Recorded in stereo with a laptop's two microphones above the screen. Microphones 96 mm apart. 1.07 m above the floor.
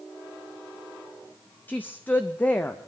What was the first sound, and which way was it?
A woman speaking, 20° left (ahead or behind).